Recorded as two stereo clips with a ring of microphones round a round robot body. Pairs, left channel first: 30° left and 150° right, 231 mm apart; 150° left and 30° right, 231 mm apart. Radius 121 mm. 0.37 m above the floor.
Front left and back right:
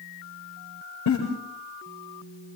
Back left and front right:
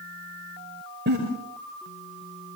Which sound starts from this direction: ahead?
A giggle, at 1.1 s.